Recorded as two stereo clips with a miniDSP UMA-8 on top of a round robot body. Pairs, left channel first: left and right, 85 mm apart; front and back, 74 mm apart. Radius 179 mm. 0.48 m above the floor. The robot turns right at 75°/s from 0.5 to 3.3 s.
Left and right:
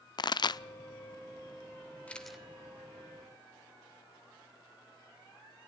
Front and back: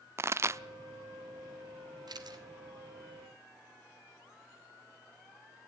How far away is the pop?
About 0.6 m.